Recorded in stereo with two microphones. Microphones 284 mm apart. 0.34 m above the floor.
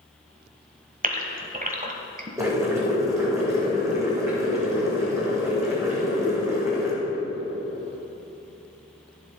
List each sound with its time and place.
1.0 s a gasp: 30° right (ahead or behind), 1.3 m
2.4 s boiling: 10° right (ahead or behind), 4 m